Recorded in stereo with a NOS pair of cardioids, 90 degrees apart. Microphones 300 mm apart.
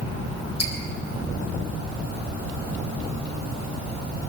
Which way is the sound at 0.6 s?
60° left.